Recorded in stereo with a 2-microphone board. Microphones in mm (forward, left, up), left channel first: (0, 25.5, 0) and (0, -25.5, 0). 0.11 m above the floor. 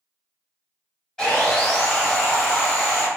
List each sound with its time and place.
1.2 s sawing: 10° left (ahead or behind), 1.4 m